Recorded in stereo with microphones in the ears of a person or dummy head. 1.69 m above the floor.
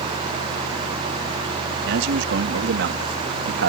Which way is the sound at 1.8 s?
75° right (ahead or behind).